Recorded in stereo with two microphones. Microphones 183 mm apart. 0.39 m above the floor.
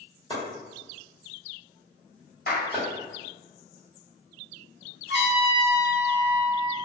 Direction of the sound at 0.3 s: 25° left (ahead or behind).